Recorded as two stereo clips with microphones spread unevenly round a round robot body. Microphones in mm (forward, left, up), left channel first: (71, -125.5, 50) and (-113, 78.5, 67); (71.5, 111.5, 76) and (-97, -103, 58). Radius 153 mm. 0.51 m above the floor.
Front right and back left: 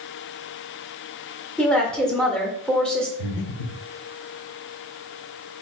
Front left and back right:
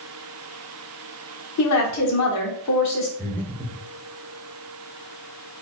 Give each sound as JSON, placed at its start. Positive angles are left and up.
{"t": 1.6, "sound": "a woman speaking", "azimuth_deg": 35, "distance_m": 1.4}
{"t": 3.2, "sound": "breathing", "azimuth_deg": -30, "distance_m": 1.0}